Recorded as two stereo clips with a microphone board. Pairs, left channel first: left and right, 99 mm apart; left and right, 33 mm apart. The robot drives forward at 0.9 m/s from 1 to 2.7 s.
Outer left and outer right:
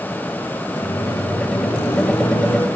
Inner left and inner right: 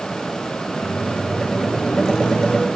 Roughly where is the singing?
I don't hear singing.